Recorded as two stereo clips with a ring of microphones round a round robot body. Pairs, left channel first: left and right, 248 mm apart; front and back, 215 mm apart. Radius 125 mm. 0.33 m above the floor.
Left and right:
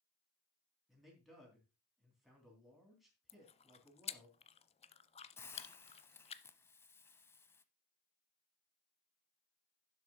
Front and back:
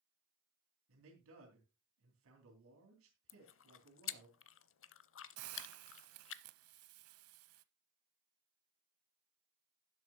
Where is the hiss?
170° left, 0.7 m.